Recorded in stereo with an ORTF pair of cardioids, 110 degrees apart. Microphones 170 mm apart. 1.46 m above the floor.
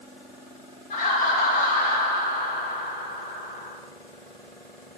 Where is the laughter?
50° left, 2.5 m.